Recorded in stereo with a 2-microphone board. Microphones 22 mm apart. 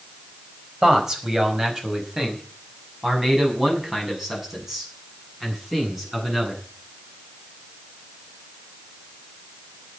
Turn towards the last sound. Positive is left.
turn(degrees=-15)  # may be behind; listen again after turning